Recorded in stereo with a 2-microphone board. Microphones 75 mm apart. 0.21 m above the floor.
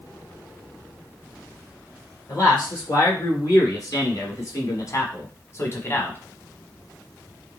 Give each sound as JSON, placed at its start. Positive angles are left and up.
{"t": 2.3, "sound": "a man speaking", "side_deg": 45, "distance_m": 3.0}